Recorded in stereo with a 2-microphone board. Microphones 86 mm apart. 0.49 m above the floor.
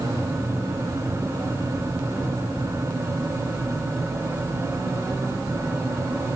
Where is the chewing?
No chewing in this recording.